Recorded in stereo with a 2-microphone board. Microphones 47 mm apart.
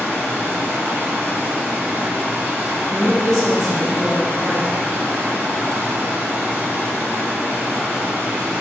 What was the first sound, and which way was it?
Running water, 55° right (ahead or behind).